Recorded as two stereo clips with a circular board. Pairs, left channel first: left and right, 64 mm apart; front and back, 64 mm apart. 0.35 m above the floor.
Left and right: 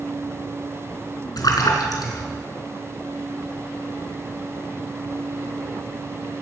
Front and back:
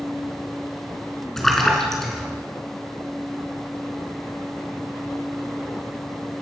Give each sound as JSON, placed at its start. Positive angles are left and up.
{"t": 1.4, "sound": "a splash", "azimuth_deg": 85, "distance_m": 4.0}